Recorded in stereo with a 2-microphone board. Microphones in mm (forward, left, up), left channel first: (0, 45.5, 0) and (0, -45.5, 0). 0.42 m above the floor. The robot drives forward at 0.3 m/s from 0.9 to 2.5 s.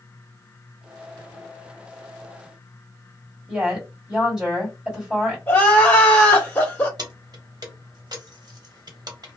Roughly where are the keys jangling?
Right.